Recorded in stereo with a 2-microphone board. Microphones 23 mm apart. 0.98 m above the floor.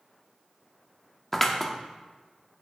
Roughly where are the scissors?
Centre.